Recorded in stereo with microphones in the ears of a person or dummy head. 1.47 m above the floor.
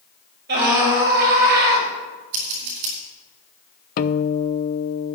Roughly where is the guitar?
Left.